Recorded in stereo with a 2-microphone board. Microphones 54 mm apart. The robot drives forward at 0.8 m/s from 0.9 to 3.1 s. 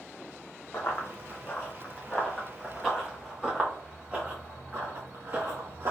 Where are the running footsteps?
50° left (ahead or behind), 1.2 m; by 5.9 s 55° right (ahead or behind), 1.6 m.